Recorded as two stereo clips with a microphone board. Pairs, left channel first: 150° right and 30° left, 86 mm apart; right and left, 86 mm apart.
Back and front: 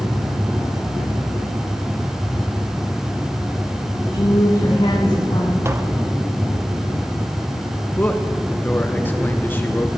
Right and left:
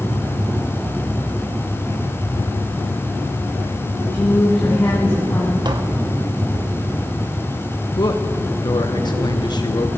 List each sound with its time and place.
4.1 s a woman speaking: 160° right, 1.8 m; by 5.5 s 150° right, 3 m
5.7 s tapping: 85° left, 0.9 m
8.0 s a man speaking: 90° right, 0.9 m